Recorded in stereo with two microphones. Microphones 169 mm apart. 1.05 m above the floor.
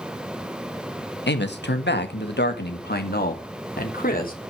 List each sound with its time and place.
1.3 s a man speaking: 70° left (ahead or behind), 1.3 m; by 4.3 s 50° left (ahead or behind), 2.5 m